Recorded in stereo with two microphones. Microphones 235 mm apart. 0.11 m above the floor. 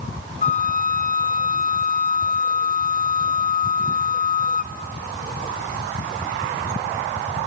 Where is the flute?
35° left (ahead or behind), 0.9 m.